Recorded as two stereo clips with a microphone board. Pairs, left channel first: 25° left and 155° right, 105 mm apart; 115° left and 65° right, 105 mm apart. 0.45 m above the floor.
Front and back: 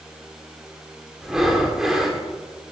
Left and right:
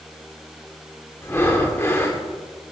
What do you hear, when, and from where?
1.2 s breathing: 125° left, 1.2 m